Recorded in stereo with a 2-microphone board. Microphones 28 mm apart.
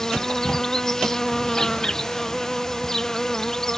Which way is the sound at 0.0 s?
20° left (ahead or behind).